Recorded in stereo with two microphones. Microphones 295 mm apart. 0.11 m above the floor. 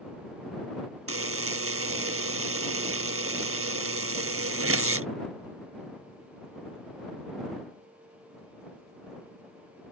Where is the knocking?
I don't hear knocking.